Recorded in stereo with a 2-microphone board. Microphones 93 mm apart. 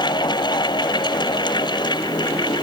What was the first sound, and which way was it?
Only background noise.